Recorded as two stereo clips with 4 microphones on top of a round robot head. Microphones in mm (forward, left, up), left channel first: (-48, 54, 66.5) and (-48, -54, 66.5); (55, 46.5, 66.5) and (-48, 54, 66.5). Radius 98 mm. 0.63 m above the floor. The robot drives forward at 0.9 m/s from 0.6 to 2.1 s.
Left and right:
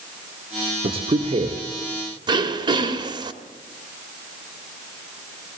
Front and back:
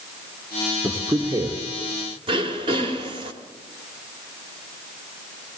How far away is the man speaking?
About 1.7 m.